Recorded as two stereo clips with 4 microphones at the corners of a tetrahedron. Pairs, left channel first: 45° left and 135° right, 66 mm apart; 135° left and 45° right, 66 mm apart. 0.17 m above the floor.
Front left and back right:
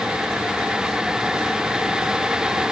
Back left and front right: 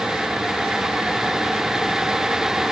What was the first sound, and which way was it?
Only background noise.